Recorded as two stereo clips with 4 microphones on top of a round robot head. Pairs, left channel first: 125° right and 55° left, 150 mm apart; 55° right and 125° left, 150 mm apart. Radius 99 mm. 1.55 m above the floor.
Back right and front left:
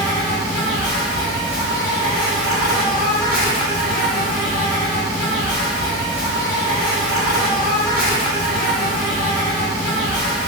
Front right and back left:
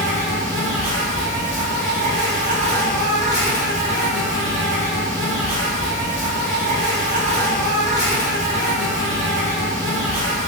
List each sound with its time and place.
0.0 s an insect: 155° left, 1.8 m